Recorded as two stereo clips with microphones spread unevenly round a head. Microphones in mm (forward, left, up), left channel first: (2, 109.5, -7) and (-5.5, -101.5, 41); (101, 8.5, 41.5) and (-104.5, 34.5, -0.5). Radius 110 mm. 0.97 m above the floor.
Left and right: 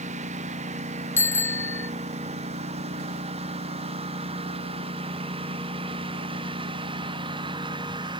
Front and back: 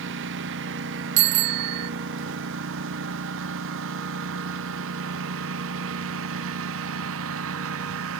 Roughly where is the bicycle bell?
Behind.